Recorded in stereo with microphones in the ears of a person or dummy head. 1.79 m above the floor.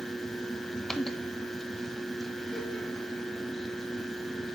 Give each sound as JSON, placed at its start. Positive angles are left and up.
{"t": 0.0, "sound": "a fan", "side_deg": 5, "distance_m": 1.3}